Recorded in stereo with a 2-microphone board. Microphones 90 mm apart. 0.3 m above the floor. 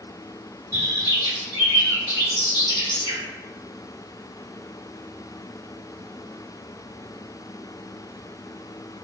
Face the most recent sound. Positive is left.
turn(degrees=-35)  # may be behind; listen again after turning